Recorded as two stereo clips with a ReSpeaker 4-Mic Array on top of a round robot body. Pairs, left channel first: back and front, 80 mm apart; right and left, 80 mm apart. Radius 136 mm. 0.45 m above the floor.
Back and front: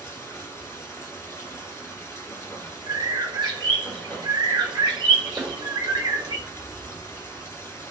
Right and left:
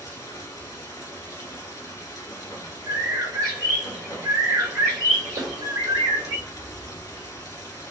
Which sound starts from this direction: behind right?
Running water, at 0.0 s.